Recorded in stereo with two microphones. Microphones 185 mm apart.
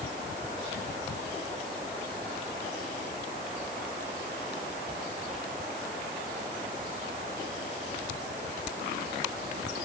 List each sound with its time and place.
Only background noise.